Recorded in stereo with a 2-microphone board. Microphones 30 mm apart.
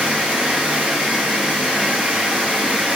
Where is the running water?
85° right, 1.4 m.